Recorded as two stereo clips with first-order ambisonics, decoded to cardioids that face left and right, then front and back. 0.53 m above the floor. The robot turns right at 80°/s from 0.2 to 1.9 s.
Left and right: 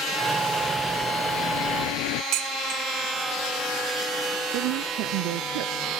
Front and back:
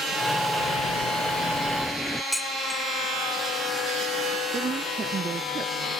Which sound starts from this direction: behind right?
A woman speaking, at 4.5 s.